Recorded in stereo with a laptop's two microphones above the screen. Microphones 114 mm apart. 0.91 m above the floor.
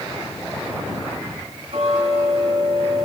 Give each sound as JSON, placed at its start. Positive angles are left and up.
{"t": 1.7, "sound": "ticking", "side_deg": -60, "distance_m": 7.5}